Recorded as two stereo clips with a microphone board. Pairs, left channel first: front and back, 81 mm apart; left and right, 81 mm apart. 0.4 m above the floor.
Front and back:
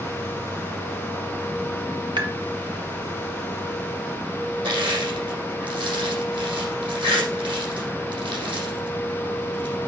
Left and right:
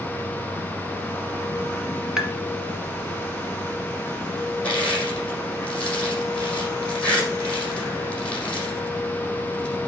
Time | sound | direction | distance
2.2 | tapping | 170° right | 1.3 m
4.6 | crushing | 165° left | 6 m